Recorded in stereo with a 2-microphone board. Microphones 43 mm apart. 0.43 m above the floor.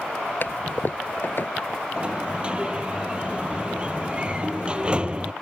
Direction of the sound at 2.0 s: 25° right (ahead or behind).